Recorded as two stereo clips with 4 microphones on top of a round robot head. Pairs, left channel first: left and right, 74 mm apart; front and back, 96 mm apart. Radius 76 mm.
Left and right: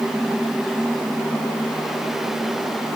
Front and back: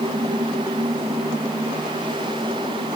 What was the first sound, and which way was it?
Only background noise.